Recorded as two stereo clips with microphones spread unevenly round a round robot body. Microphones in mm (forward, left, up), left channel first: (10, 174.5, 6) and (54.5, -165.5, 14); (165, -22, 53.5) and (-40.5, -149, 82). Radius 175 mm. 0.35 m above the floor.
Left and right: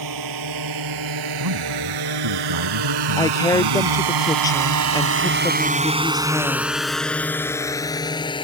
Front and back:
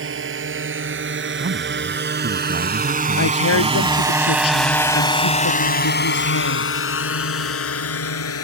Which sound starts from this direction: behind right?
A drone, at 0.0 s.